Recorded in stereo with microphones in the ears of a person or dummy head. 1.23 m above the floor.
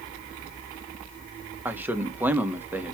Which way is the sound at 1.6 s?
5° right (ahead or behind).